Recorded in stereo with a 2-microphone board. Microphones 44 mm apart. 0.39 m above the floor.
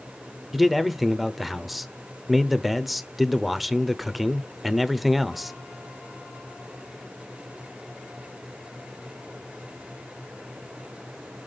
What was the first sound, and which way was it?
A man speaking, centre (ahead or behind).